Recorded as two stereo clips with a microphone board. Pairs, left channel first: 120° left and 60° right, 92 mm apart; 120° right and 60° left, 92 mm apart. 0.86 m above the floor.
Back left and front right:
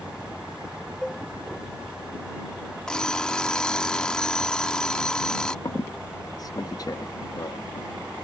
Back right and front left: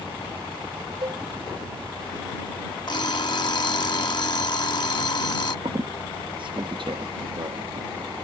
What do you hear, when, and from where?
1.0 s a cowbell: 35° left
2.9 s an alarm clock: 160° right
5.7 s a squeak: 75° left